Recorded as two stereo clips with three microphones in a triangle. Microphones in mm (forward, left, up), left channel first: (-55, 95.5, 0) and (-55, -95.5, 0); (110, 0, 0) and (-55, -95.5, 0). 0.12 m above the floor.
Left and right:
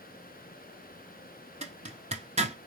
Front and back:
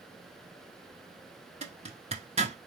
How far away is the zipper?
About 1.0 m.